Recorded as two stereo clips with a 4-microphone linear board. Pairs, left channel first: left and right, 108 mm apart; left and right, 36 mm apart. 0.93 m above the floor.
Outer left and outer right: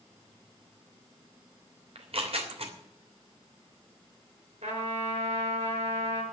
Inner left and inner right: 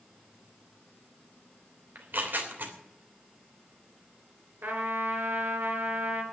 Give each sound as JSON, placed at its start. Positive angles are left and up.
{"t": 1.9, "sound": "tearing paper", "side_deg": -65, "distance_m": 3.0}
{"t": 4.6, "sound": "a trumpet", "side_deg": -75, "distance_m": 4.5}